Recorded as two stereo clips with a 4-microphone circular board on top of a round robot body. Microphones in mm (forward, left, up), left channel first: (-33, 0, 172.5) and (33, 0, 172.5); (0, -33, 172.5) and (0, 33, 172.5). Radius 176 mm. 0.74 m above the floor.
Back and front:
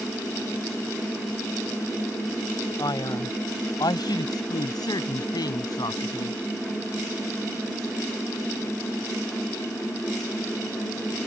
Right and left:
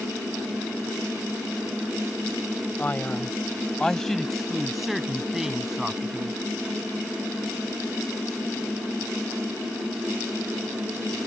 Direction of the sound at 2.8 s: 155° right.